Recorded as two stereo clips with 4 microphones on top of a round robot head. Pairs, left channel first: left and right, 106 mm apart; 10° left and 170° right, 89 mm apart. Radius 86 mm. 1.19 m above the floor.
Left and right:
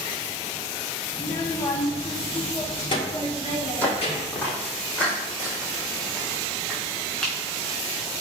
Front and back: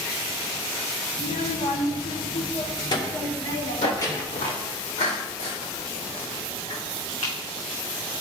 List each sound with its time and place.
1.1 s a child speaking: 20° left, 1.2 m; by 4.5 s 60° left, 2.5 m
3.8 s footsteps: 15° left, 2.5 m; by 7.3 s 5° left, 5 m